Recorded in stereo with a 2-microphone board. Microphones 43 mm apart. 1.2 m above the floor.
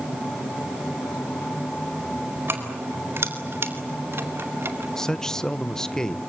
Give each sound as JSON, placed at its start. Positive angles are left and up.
{"t": 2.5, "sound": "keys jangling", "side_deg": -80, "distance_m": 4.0}
{"t": 5.0, "sound": "a man speaking", "side_deg": 10, "distance_m": 0.9}